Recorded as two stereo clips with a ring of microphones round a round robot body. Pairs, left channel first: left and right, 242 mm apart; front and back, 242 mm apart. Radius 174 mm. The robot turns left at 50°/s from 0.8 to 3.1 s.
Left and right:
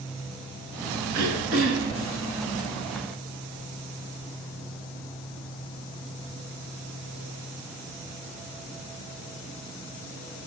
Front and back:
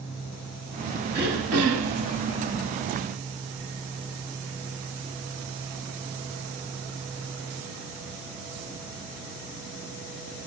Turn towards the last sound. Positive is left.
turn(degrees=145)